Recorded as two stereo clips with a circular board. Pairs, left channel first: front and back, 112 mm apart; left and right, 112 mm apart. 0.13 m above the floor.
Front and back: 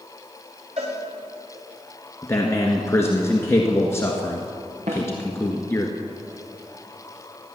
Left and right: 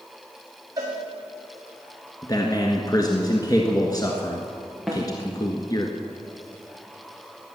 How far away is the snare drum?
About 4.5 m.